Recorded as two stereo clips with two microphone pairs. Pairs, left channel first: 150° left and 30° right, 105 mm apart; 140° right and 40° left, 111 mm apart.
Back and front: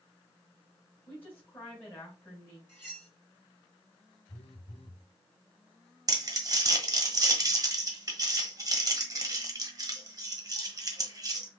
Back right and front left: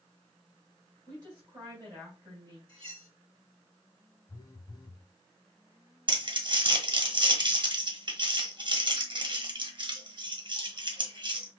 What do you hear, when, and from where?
1.1 s a woman speaking: 80° left, 2.5 m
2.7 s cutlery clinking: 80° left, 3 m
4.3 s a phone buzzing: 165° left, 0.8 m
6.1 s crumpling: 15° left, 1.2 m